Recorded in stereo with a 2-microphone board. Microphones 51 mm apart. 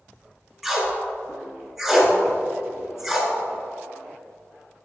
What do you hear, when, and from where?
0.6 s tape being pulled: centre (ahead or behind), 1.5 m